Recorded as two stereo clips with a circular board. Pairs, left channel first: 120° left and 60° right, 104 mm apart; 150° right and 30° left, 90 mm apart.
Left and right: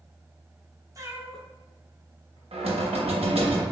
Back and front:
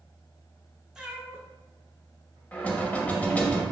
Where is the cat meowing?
45° right, 0.5 m; by 2.4 s 85° left, 1.1 m.